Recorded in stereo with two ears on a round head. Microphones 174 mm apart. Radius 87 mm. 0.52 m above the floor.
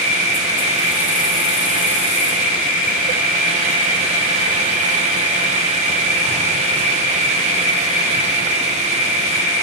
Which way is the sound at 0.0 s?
45° left (ahead or behind).